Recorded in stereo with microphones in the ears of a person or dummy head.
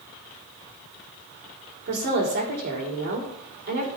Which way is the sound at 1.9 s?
55° right (ahead or behind).